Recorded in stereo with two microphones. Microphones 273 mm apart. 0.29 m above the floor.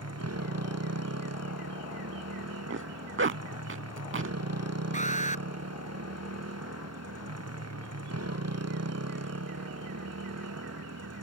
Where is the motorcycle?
65° right (ahead or behind).